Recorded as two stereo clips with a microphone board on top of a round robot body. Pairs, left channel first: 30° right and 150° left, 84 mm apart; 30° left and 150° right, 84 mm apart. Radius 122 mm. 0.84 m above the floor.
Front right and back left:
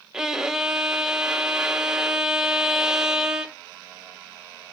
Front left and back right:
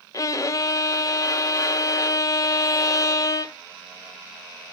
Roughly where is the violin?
Ahead left.